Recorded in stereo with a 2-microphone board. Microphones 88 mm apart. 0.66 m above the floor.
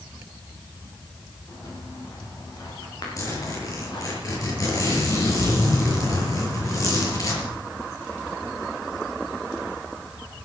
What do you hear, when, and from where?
1.5 s footsteps: 40° left (ahead or behind), 8 m; by 4.2 s 55° left (ahead or behind), 7.5 m
3.2 s a zipper: 40° left (ahead or behind), 6.5 m